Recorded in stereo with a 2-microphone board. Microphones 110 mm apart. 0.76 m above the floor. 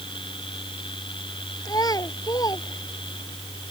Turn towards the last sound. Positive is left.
turn(degrees=35)  # may be behind; listen again after turning